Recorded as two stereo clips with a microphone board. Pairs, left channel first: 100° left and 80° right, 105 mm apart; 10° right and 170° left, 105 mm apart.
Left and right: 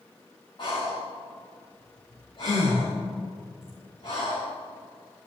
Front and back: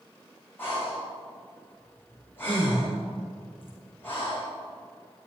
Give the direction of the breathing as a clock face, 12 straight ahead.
10 o'clock.